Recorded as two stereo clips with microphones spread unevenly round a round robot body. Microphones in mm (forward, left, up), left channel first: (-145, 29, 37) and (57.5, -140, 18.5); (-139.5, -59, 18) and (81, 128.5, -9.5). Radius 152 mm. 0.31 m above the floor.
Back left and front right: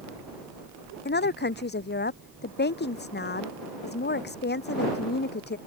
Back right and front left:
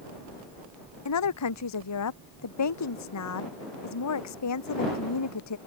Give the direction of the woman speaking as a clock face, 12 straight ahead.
6 o'clock.